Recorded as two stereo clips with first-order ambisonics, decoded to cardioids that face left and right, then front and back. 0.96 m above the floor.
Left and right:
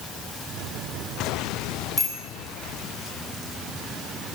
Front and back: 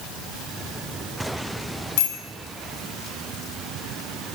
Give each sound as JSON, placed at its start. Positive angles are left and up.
{"t": 2.0, "sound": "a bicycle bell", "azimuth_deg": 5, "distance_m": 7.0}